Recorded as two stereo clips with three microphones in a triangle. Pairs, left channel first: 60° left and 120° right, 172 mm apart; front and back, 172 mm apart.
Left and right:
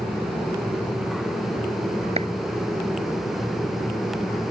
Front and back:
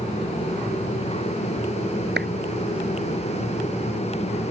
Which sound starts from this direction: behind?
A clap, at 2.2 s.